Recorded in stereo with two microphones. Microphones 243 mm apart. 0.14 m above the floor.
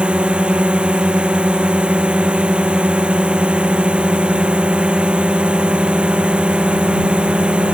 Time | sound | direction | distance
0.0 | a drone | 5° right (ahead or behind) | ?